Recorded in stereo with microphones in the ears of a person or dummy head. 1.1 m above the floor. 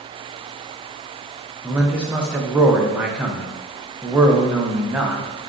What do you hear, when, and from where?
1.6 s a man speaking: 5° right (ahead or behind), 0.7 m